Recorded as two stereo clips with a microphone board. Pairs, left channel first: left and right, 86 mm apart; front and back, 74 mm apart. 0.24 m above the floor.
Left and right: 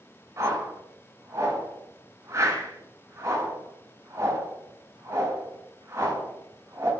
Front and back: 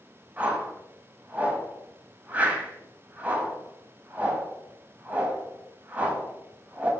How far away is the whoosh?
About 0.5 m.